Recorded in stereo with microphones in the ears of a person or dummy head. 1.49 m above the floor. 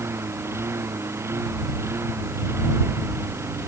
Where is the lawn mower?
15° right (ahead or behind).